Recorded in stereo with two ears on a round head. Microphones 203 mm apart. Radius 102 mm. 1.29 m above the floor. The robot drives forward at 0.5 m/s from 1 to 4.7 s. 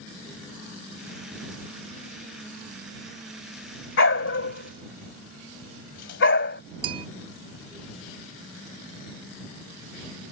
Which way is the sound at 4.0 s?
55° left (ahead or behind).